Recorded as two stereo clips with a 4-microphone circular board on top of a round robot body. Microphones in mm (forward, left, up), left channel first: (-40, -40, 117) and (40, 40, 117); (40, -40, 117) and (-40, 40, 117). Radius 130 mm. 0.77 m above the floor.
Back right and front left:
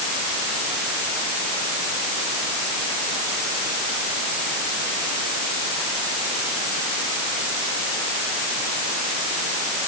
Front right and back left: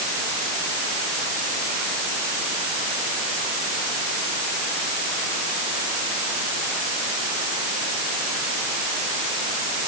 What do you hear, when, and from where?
Only background noise.